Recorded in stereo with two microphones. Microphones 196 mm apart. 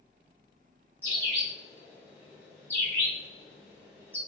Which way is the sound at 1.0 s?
10° left (ahead or behind).